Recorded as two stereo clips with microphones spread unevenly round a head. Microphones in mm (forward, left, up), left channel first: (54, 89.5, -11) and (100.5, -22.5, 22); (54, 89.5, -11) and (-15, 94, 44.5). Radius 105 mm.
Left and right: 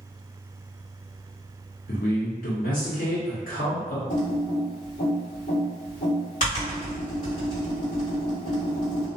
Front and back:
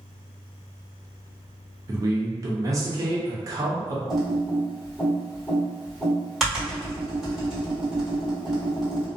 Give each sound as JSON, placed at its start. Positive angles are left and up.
{"t": 1.9, "sound": "a man speaking", "azimuth_deg": 160, "distance_m": 0.7}
{"t": 4.1, "sound": "typing on a keyboard", "azimuth_deg": 125, "distance_m": 1.7}